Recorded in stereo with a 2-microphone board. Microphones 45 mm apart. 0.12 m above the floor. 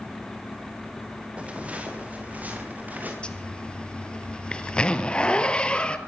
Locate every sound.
1.4 s footsteps: 30° right (ahead or behind), 4.5 m; by 3.1 s 40° right (ahead or behind), 7 m
3.2 s a zipper: 25° left (ahead or behind), 1.6 m